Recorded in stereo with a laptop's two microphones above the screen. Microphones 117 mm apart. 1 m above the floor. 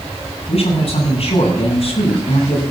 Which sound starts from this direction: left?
A man speaking, at 0.5 s.